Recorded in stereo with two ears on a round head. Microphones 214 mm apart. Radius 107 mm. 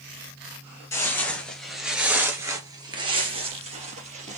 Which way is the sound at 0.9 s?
10° left (ahead or behind).